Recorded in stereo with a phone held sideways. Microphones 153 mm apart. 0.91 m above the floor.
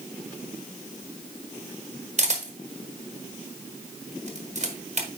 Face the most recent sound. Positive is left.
turn(degrees=-50)  # may be behind; listen again after turning